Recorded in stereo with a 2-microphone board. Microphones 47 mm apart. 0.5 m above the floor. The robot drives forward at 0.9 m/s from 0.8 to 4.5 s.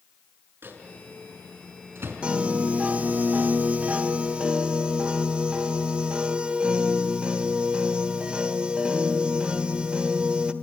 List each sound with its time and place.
0.6 s a microwave: 55° right (ahead or behind), 6 m; by 2.2 s 65° right (ahead or behind), 5.5 m
2.2 s a piano: 25° right (ahead or behind), 1.4 m